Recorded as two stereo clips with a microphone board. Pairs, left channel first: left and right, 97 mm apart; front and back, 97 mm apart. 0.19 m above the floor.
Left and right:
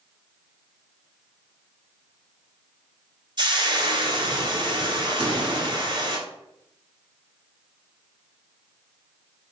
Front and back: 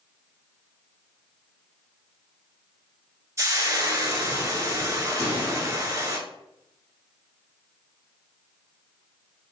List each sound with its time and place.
3.4 s frying: 120° right, 0.8 m
5.2 s a pop: 60° right, 2 m